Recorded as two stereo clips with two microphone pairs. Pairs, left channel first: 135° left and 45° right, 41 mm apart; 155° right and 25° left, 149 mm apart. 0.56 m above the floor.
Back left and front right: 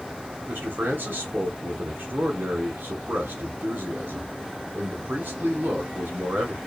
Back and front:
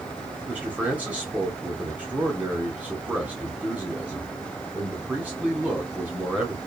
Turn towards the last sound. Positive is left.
turn(degrees=-55)